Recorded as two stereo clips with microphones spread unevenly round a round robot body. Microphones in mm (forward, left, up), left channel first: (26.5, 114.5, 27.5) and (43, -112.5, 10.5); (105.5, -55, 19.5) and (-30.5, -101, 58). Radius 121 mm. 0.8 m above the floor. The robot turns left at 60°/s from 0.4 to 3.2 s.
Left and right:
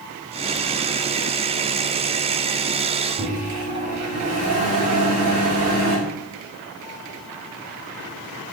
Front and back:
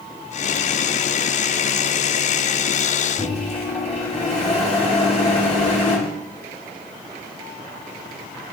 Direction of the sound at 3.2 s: 70° right.